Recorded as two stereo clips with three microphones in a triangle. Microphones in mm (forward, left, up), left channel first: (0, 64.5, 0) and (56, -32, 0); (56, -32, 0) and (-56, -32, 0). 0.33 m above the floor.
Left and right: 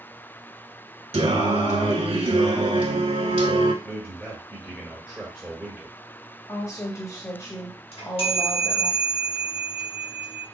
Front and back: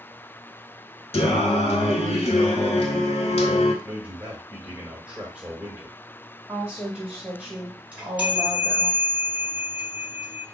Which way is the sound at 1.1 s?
30° right.